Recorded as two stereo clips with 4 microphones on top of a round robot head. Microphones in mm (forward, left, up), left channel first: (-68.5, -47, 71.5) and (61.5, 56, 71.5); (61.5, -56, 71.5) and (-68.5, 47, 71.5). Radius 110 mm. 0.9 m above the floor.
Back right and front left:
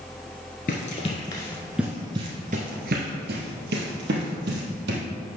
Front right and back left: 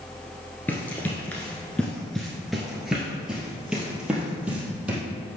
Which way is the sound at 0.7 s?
115° right.